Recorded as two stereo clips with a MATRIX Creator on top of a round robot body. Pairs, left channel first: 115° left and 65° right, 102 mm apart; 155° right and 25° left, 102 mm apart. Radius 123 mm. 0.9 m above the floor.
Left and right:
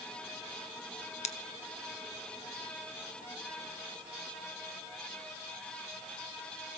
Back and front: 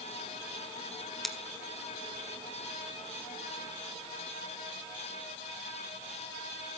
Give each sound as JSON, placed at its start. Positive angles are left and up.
{"t": 1.2, "sound": "scissors", "azimuth_deg": 115, "distance_m": 1.2}